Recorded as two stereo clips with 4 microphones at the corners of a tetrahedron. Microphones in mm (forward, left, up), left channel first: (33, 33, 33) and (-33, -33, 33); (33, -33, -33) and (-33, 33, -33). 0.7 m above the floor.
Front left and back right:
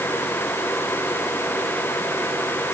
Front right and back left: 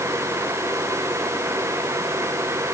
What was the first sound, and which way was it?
Only background noise.